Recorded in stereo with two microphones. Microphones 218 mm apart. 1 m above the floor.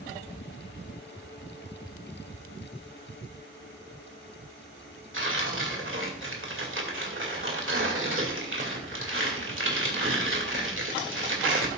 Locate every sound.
5.1 s tearing paper: 65° right (ahead or behind), 2 m